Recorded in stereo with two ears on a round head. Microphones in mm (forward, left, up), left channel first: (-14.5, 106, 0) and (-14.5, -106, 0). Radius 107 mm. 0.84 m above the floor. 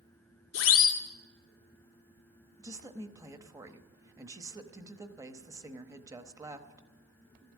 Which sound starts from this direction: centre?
A woman speaking, at 2.6 s.